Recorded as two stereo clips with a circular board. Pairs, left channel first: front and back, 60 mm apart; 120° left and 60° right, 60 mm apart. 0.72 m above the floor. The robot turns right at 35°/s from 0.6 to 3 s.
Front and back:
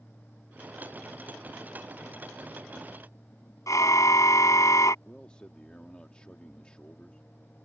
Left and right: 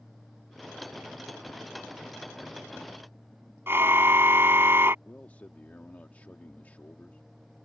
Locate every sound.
3.7 s a car horn: 15° right
5.0 s a man speaking: 65° left